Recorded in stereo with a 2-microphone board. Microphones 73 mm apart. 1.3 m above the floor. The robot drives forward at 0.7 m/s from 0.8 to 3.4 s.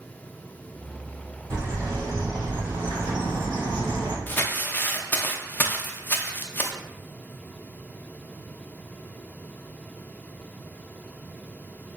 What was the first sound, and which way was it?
A bird, 50° right (ahead or behind).